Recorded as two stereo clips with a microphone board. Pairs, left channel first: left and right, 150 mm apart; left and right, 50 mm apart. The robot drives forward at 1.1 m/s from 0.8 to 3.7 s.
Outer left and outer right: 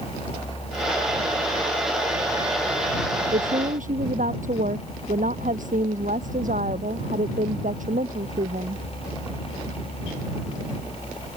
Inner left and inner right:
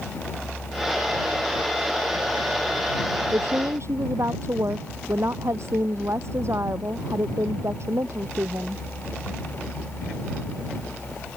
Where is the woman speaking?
60° right (ahead or behind).